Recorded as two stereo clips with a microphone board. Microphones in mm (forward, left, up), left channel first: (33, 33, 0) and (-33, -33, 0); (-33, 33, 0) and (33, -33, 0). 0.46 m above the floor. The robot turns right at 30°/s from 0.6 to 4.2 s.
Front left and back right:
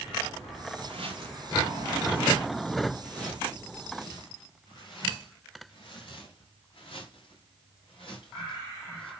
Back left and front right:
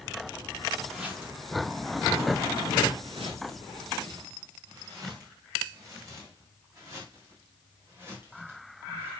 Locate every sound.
0.8 s footsteps: 130° right, 2.5 m; by 9.1 s 20° left, 7 m